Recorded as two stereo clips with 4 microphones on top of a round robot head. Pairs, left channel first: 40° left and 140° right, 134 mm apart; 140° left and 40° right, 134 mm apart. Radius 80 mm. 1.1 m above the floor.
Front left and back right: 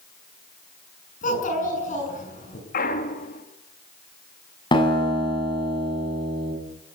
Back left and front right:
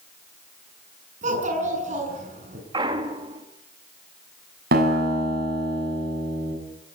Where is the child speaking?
Straight ahead, 7 m.